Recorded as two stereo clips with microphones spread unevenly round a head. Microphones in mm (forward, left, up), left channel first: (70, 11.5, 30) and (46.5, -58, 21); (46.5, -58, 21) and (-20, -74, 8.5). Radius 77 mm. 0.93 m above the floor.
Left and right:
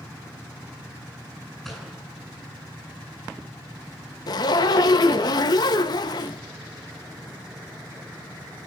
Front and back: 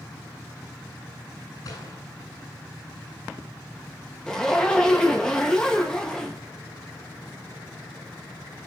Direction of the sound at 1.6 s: 20° right.